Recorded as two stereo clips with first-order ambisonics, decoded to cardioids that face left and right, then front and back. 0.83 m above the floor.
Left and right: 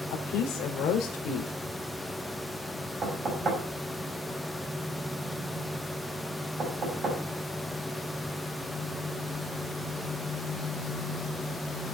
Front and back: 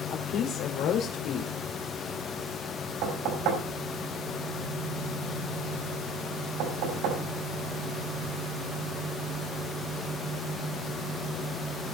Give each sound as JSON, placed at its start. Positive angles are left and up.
{"t": 0.1, "sound": "a woman speaking", "azimuth_deg": 40, "distance_m": 2.5}
{"t": 3.0, "sound": "knocking", "azimuth_deg": -155, "distance_m": 5.0}